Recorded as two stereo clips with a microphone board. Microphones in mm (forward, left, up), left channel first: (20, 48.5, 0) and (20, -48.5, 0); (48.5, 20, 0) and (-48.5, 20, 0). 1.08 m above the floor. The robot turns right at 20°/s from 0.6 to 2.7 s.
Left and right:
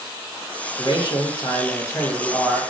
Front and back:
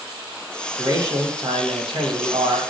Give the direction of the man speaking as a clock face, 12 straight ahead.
8 o'clock.